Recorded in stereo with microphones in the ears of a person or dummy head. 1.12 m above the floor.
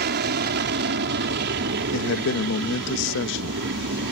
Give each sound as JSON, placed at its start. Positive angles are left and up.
{"t": 0.0, "sound": "an aircraft", "side_deg": -45}
{"t": 1.9, "sound": "a man speaking", "side_deg": 65}